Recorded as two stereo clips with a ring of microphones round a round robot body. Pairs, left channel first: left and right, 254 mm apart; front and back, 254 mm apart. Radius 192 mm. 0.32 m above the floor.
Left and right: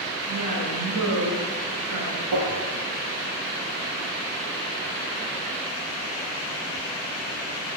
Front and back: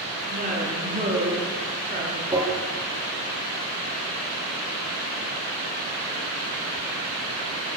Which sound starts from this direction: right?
Tapping, at 2.3 s.